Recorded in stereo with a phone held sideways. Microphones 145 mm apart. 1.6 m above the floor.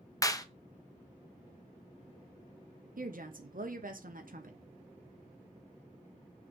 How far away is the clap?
About 0.7 m.